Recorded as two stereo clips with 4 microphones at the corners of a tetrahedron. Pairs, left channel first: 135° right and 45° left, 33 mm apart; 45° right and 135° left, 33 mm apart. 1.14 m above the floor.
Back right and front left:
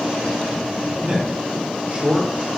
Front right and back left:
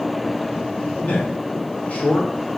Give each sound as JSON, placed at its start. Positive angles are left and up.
{"t": 1.0, "sound": "a man speaking", "azimuth_deg": 0, "distance_m": 1.2}